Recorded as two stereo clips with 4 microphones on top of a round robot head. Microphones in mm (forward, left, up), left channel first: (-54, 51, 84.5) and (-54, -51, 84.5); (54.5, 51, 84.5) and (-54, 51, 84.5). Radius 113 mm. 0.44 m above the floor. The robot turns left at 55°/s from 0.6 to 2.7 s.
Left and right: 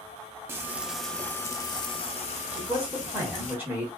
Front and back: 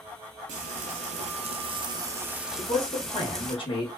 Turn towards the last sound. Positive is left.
turn(degrees=-20)